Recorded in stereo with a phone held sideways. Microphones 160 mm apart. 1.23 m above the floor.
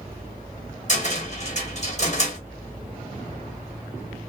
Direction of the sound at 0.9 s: 50° left (ahead or behind).